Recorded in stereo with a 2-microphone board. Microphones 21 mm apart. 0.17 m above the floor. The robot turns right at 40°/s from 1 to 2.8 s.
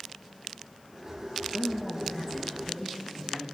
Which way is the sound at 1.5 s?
125° left.